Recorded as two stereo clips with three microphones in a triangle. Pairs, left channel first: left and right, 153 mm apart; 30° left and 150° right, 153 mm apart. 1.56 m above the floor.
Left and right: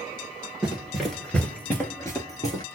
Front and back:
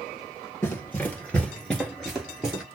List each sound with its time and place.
0.6 s running footsteps: 15° right, 1.6 m; by 2.6 s 130° left, 1.8 m